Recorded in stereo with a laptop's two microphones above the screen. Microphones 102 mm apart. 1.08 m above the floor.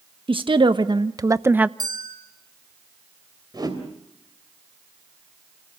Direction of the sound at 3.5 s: 40° right (ahead or behind).